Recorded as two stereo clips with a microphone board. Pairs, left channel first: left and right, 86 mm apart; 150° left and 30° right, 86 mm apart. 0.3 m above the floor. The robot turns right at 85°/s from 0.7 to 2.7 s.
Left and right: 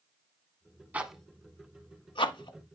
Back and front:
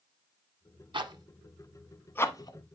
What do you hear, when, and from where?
0.9 s a zipper: 20° right, 0.8 m; by 2.6 s 120° left, 0.8 m